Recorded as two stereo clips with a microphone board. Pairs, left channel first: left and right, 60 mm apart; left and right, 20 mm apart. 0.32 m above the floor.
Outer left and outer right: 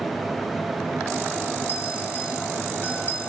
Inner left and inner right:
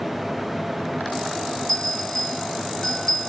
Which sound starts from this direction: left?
A bell, at 1.7 s.